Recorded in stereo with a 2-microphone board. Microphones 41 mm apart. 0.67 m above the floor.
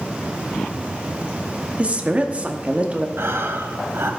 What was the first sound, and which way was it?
A woman speaking, 25° right (ahead or behind).